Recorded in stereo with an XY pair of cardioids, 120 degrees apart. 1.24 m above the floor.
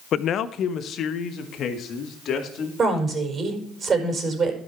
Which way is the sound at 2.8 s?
35° right.